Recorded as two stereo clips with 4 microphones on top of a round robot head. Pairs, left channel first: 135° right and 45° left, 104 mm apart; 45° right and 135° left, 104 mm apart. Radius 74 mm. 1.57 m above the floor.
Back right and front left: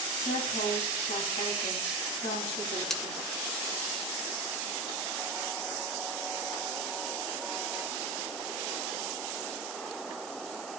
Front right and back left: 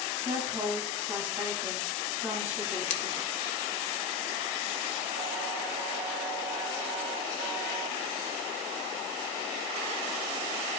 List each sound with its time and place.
0.2 s a woman speaking: 160° right, 2.5 m
2.9 s scissors: 50° right, 0.8 m